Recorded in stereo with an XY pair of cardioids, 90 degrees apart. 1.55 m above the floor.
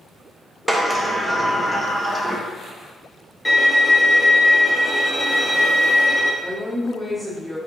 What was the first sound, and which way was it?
A sliding door, 10° right.